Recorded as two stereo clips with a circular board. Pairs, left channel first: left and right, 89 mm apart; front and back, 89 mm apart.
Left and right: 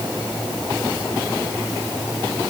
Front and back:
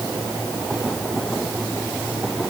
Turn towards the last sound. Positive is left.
No sound to turn to.